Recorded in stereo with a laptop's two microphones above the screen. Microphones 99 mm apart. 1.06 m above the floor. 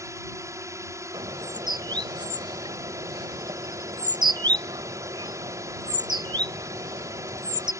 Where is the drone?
30° right (ahead or behind).